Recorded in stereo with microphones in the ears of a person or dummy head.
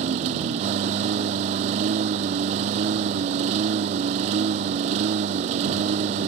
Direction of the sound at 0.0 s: 35° right (ahead or behind).